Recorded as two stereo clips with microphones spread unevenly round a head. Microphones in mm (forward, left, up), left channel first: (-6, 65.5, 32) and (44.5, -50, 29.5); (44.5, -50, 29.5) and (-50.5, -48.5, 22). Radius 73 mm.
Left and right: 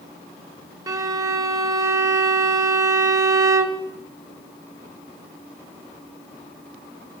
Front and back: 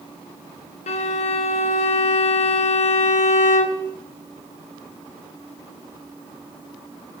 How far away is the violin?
About 0.8 m.